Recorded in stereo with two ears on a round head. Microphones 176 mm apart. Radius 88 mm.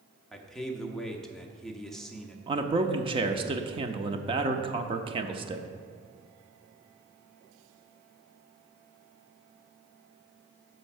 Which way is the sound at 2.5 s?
25° right (ahead or behind).